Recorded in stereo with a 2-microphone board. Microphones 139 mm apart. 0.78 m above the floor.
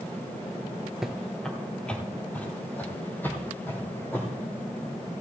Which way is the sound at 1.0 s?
Centre (ahead or behind).